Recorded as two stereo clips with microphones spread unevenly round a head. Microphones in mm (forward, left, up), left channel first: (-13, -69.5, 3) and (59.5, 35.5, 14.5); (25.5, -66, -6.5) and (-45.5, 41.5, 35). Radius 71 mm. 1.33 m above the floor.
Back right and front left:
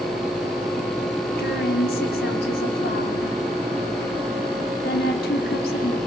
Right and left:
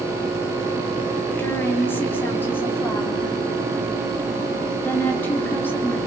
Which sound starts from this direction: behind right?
A woman speaking, at 1.4 s.